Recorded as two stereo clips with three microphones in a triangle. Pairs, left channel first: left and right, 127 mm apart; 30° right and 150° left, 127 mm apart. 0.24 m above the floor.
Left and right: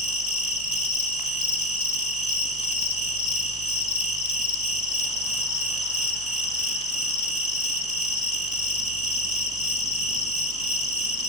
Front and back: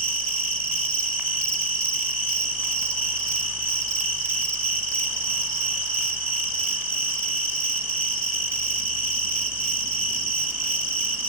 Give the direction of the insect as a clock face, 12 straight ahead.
9 o'clock.